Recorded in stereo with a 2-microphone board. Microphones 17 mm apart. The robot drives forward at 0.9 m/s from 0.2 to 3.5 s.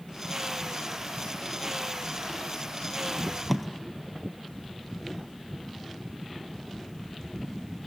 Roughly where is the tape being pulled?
Centre.